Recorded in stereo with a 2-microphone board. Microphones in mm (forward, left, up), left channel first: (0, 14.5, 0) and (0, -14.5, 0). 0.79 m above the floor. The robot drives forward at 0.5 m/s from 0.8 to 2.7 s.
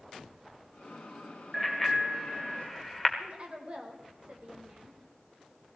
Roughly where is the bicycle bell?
Centre.